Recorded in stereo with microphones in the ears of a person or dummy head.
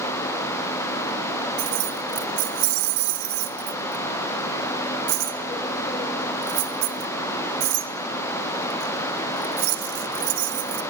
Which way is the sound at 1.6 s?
65° right (ahead or behind).